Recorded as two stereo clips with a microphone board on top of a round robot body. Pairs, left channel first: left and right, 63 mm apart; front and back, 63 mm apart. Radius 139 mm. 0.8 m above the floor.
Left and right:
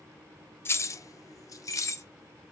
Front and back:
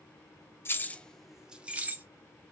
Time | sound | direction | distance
0.7 | keys jangling | 45° left | 0.6 m